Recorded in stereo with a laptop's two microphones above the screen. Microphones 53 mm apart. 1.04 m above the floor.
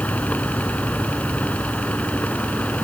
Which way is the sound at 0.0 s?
30° left (ahead or behind).